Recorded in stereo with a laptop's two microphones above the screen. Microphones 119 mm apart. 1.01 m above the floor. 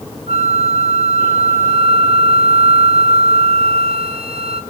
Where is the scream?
No scream in this recording.